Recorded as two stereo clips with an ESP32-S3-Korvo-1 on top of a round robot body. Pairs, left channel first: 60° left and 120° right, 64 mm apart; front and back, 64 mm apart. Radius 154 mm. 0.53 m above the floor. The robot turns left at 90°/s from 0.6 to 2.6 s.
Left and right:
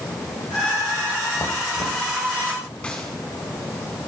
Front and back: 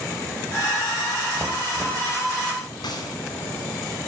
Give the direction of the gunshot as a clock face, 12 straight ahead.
12 o'clock.